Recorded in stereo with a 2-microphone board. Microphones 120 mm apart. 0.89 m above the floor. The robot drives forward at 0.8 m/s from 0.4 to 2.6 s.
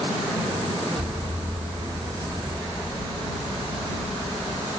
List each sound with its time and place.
1.0 s an explosion: 85° right, 4.5 m; by 4.7 s 75° right (ahead or behind), 4.5 m